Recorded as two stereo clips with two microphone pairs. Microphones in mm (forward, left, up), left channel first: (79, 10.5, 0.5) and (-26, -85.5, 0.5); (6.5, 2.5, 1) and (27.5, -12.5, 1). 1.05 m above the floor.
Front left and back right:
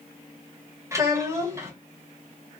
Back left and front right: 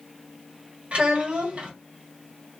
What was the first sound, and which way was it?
A child speaking, 70° right.